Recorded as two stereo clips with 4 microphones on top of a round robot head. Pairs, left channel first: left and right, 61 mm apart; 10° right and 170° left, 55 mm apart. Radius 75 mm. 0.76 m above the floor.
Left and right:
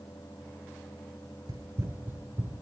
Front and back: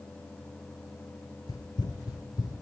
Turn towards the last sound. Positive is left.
turn(degrees=-20)